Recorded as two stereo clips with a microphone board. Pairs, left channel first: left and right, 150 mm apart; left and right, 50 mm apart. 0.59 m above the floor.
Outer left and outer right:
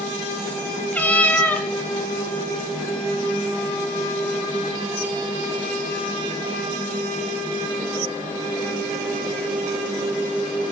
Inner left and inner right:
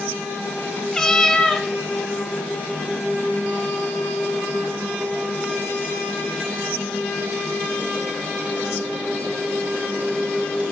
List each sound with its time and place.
0.9 s a cat meowing: 10° left (ahead or behind), 0.7 m